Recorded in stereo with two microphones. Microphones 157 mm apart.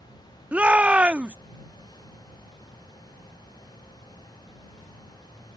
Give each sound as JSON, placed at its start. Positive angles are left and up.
{"t": 0.5, "sound": "a shout", "side_deg": -10}